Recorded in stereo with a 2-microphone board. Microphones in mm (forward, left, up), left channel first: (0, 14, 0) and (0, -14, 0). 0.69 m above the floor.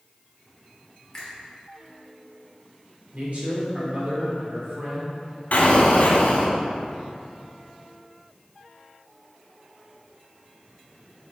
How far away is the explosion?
About 1.5 m.